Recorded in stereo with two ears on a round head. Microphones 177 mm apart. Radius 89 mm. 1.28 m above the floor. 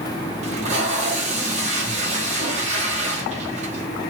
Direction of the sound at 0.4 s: 35° right (ahead or behind).